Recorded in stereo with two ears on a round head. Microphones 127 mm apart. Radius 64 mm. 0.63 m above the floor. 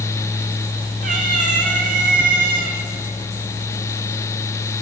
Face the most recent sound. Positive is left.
turn(degrees=-75)  # may be behind; listen again after turning